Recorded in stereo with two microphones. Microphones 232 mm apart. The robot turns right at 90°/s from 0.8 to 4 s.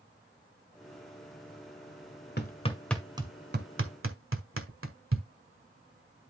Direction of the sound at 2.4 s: 45° left (ahead or behind).